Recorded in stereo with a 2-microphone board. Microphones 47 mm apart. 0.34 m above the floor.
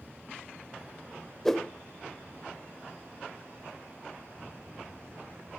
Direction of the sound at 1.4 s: 10° left (ahead or behind).